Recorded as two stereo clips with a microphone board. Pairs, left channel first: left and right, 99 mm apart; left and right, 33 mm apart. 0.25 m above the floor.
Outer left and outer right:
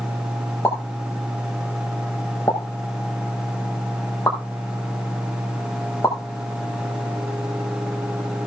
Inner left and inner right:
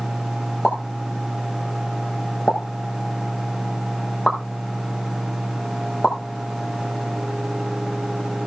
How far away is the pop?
About 6 m.